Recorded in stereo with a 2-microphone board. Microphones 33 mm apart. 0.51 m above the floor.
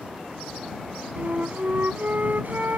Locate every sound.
1.2 s a flute: 60° right (ahead or behind)